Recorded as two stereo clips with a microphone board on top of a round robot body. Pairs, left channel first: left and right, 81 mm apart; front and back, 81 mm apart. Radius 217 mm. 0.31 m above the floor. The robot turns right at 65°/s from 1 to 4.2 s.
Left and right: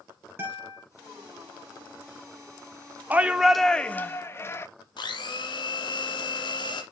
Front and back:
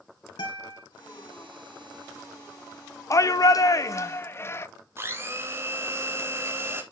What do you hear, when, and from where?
0.4 s a guitar: 30° right, 3.5 m
3.1 s a shout: 30° right, 1.1 m; by 4.7 s 45° left, 1.1 m
5.0 s a blender: 120° left, 1.5 m